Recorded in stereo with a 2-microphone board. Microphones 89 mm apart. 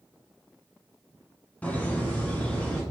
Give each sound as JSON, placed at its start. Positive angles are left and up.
{"t": 1.6, "sound": "laughter", "side_deg": 15, "distance_m": 1.0}